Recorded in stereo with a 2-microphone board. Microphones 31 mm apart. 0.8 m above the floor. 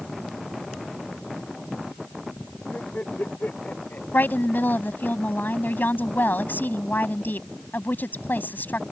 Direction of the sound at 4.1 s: 85° left.